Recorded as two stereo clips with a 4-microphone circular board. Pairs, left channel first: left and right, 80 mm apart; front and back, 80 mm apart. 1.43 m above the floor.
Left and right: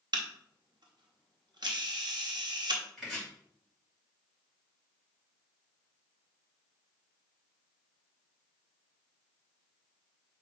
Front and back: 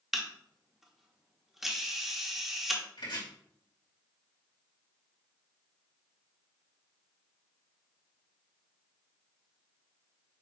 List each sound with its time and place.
0.1 s a camera shutter: 95° right, 1.3 m
3.0 s chopping: straight ahead, 3.5 m